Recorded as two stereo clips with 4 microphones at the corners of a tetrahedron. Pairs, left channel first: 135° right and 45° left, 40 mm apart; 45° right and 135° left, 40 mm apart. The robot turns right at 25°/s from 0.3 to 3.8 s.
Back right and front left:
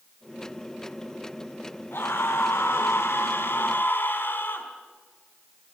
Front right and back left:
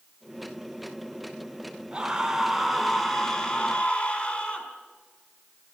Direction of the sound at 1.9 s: 155° right.